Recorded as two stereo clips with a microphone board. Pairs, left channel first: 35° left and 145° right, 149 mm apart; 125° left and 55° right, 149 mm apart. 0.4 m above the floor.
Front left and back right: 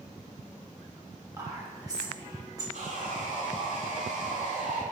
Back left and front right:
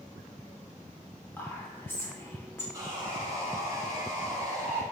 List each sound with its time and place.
1.4 s whispering: straight behind, 0.8 m
2.7 s sawing: 120° right, 0.8 m